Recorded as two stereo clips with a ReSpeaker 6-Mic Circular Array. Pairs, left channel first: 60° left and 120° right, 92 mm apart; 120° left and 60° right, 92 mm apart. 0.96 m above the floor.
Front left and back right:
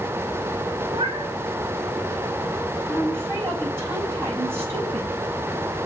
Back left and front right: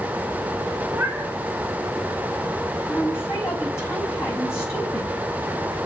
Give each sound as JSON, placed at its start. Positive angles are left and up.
{"t": 0.9, "sound": "a cat meowing", "azimuth_deg": -130, "distance_m": 1.7}
{"t": 2.9, "sound": "a woman speaking", "azimuth_deg": 180, "distance_m": 5.0}